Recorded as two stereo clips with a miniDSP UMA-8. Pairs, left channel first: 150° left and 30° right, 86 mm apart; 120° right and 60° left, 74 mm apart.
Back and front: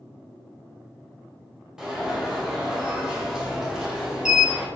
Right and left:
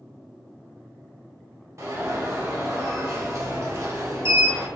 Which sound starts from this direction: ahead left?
An alarm, at 1.8 s.